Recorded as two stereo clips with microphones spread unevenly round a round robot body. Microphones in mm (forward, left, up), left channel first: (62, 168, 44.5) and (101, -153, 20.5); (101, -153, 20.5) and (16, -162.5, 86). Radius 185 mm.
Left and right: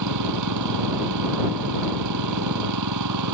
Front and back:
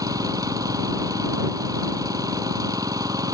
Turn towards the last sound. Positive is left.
turn(degrees=-130)